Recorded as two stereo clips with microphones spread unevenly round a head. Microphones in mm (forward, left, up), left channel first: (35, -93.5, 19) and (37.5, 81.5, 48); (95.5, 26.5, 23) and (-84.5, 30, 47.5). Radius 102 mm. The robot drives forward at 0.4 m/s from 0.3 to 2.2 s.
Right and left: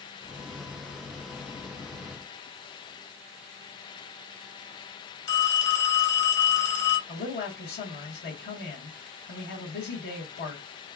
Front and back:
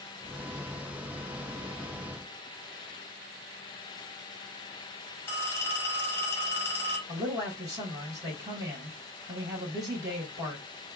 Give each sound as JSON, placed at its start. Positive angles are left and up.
{"t": 5.3, "sound": "a phone ringing", "azimuth_deg": -80, "distance_m": 1.9}
{"t": 7.1, "sound": "a man speaking", "azimuth_deg": -105, "distance_m": 1.7}